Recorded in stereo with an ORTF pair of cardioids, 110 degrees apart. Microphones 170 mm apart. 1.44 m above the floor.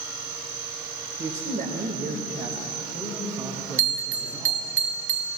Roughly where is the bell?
Ahead right.